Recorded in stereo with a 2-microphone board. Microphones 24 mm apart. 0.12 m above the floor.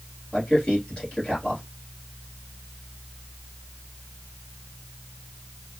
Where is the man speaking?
40° left (ahead or behind), 2.5 m.